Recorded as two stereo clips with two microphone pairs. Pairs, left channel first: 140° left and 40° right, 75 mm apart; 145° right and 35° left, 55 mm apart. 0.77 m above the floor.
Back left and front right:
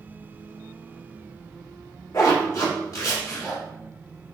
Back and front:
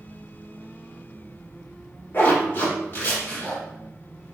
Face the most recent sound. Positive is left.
turn(degrees=175)